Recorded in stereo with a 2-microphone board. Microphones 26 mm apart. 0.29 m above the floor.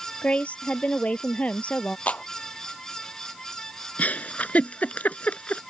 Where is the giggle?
70° left (ahead or behind).